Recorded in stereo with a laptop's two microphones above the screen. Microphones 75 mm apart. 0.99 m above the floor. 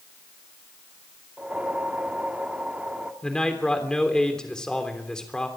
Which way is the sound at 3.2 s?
10° left (ahead or behind).